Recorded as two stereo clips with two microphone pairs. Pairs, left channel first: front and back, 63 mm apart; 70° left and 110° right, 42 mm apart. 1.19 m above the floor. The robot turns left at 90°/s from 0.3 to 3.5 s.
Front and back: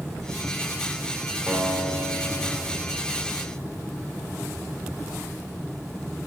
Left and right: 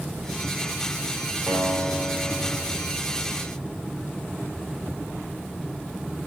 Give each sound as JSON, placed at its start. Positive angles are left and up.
{"t": 1.5, "sound": "a guitar", "azimuth_deg": -110, "distance_m": 4.5}